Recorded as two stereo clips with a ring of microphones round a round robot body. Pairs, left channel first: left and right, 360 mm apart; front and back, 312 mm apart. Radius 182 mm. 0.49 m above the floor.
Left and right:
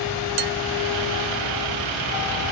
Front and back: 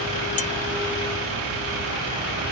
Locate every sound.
0.4 s dishes clattering: 70° right